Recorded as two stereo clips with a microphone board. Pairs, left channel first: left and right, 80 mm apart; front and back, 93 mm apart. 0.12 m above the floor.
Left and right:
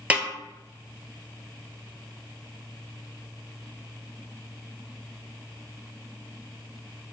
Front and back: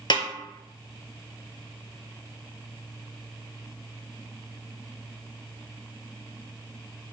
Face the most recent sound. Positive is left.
turn(degrees=-20)